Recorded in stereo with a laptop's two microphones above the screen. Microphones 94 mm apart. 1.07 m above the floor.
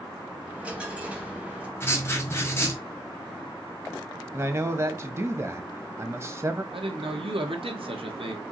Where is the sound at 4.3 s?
30° right (ahead or behind), 0.9 m.